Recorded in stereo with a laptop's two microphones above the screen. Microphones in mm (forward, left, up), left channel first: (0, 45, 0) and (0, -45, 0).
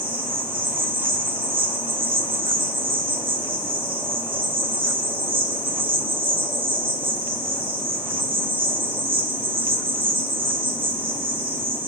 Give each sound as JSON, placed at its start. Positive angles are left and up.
{"t": 0.0, "sound": "an insect", "side_deg": -75, "distance_m": 1.7}